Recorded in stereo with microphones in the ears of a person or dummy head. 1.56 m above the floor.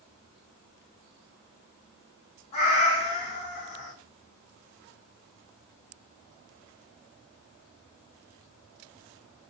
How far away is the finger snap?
I don't hear a finger snap.